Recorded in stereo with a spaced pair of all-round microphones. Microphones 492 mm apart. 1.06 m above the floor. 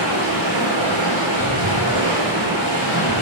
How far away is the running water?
About 4.5 m.